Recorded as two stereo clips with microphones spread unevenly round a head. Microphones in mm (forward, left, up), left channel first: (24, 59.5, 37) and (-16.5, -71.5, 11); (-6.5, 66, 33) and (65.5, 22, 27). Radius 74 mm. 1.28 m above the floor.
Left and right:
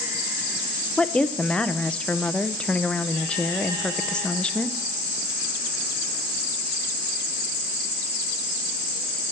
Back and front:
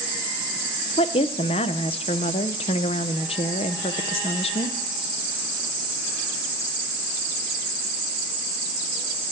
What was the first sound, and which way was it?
A woman speaking, 155° left.